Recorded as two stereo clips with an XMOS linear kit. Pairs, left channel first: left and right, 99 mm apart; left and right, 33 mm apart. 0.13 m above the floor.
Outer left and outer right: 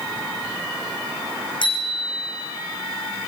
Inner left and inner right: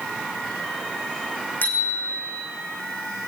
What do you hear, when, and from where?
1.6 s a bicycle bell: 55° left (ahead or behind), 6 m